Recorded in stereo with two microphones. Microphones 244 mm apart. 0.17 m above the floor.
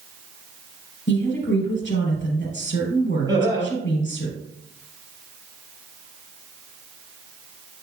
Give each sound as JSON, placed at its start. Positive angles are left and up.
{"t": 1.1, "sound": "a woman speaking", "side_deg": 50, "distance_m": 3.5}
{"t": 3.3, "sound": "laughter", "side_deg": -15, "distance_m": 4.0}